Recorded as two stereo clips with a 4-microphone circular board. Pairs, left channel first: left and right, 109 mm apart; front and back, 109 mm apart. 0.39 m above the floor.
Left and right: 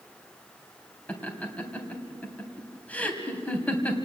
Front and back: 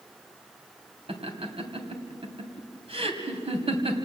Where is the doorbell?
No doorbell in this recording.